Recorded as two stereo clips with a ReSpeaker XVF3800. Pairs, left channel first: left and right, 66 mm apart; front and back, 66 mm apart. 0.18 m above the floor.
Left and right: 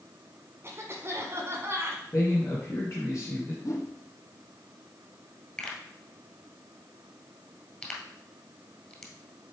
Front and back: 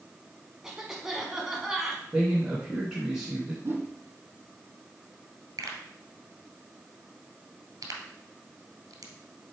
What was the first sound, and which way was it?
A cough, 100° right.